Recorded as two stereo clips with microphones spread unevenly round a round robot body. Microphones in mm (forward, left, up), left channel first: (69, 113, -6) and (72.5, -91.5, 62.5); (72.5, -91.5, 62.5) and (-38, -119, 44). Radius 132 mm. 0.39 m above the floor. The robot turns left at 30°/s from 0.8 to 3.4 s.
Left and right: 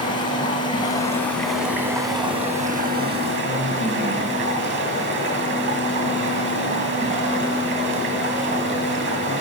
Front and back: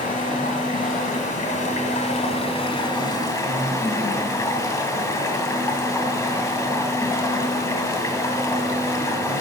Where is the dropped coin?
I don't hear a dropped coin.